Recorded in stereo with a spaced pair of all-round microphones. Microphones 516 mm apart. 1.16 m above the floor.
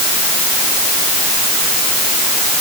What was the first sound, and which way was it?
Only background noise.